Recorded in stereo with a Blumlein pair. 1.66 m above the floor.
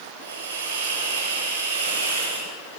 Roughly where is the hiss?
Ahead right.